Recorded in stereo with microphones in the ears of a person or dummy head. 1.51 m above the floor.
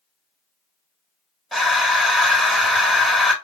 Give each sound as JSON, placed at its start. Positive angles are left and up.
{"t": 1.5, "sound": "breathing", "side_deg": 0, "distance_m": 1.2}